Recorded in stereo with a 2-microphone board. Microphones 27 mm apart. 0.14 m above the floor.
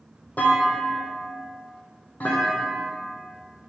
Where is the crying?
I don't hear crying.